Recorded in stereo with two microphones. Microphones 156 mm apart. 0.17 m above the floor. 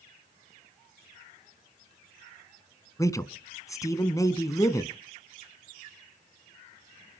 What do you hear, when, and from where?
3.0 s a man speaking: 20° left (ahead or behind), 1.5 m